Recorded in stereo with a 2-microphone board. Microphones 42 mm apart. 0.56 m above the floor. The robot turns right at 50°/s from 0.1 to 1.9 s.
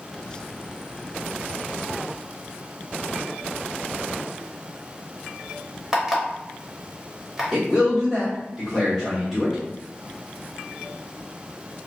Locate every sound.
5.9 s an alarm clock: 10° right (ahead or behind), 1.0 m
7.5 s a man speaking: centre (ahead or behind), 1.3 m